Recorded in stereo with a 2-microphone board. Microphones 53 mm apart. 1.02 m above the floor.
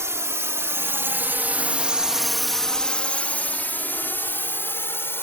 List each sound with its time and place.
0.0 s a drone: 65° right (ahead or behind); by 5.2 s 50° left (ahead or behind)